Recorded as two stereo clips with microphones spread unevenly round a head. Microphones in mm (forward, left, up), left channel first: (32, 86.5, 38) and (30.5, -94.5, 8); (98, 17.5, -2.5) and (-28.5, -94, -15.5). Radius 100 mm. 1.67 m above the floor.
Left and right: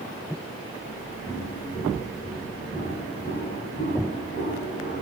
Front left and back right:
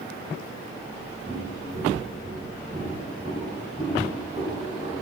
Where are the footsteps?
175° right, 6 m; by 5.0 s 140° left, 8.5 m.